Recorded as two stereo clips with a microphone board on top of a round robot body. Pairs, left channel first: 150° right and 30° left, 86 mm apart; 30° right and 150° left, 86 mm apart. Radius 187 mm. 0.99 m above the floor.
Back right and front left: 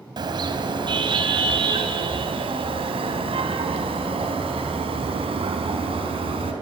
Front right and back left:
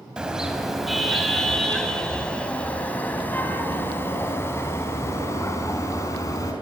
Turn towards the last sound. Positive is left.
turn(degrees=20)